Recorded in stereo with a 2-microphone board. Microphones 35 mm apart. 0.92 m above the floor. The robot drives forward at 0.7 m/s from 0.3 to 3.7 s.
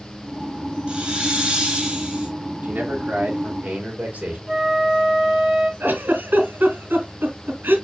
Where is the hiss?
30° right (ahead or behind), 2.5 m; by 2.3 s 25° right (ahead or behind), 3.5 m.